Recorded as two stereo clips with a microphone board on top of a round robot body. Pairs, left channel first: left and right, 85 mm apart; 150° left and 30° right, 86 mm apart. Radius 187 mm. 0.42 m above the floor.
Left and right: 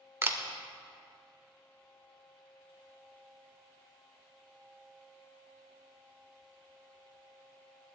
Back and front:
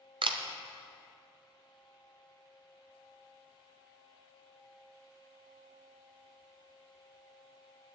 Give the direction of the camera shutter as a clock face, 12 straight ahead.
1 o'clock.